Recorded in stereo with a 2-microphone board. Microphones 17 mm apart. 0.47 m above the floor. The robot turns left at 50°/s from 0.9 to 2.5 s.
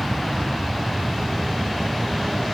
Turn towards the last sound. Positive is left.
turn(degrees=-5)